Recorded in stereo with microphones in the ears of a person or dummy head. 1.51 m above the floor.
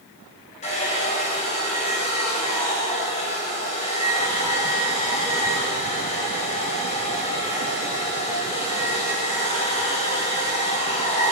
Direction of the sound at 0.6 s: 40° left (ahead or behind).